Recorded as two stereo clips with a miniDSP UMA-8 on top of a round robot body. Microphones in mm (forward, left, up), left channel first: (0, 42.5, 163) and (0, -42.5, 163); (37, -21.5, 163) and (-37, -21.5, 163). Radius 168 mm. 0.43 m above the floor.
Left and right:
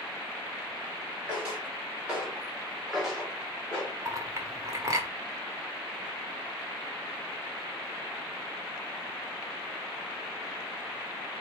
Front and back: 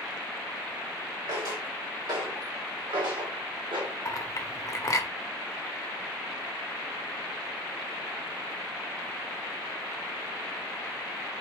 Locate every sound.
1.3 s footsteps: 155° right, 3 m; by 4.0 s 165° left, 1.9 m
4.0 s a clink: 40° right, 1.1 m